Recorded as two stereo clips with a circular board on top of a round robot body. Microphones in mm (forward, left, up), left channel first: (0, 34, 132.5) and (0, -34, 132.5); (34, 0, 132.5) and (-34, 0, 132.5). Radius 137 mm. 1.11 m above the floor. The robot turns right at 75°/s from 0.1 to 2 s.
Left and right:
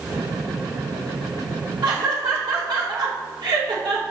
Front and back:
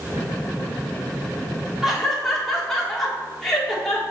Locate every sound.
1.8 s laughter: 100° right, 1.7 m; by 4.0 s 85° right, 1.7 m